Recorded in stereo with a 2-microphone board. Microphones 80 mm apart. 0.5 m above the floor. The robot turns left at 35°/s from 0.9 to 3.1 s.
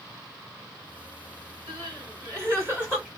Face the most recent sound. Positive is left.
turn(degrees=-165)